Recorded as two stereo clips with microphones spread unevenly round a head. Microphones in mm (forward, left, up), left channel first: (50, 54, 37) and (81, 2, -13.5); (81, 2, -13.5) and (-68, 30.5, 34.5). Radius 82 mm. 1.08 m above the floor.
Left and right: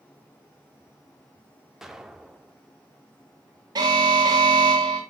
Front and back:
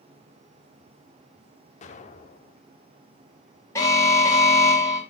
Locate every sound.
1.8 s an explosion: 40° left, 1.3 m
3.8 s an alarm: 85° right, 3 m